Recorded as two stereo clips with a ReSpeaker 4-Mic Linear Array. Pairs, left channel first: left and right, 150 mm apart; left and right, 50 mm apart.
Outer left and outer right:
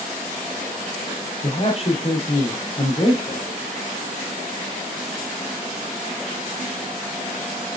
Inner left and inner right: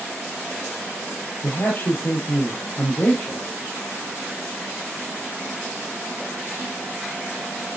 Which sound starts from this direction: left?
A man speaking, at 1.4 s.